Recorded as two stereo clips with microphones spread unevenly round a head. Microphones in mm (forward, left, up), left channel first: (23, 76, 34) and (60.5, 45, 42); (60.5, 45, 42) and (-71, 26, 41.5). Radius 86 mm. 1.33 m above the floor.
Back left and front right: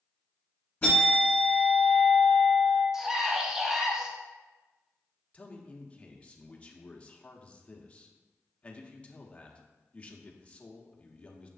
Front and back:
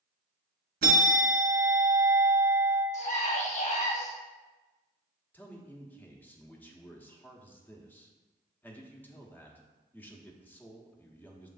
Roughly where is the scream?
Ahead left.